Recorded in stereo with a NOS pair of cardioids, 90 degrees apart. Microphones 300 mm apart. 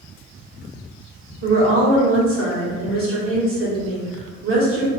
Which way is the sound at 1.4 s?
45° right.